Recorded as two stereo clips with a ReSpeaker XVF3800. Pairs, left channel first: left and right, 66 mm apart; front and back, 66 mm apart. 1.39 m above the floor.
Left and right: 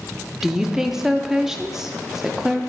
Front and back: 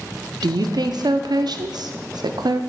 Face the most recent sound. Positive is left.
turn(degrees=-170)